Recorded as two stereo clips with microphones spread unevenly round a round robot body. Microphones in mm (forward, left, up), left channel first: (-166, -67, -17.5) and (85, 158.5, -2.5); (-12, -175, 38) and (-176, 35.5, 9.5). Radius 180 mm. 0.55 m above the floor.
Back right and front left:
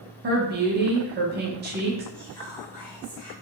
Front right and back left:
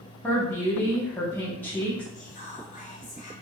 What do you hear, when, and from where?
0.2 s a woman speaking: 35° left, 0.6 m
2.1 s whispering: 100° right, 1.0 m